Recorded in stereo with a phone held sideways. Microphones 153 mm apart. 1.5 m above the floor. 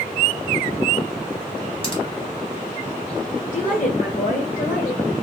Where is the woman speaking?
60° left (ahead or behind), 1.3 m.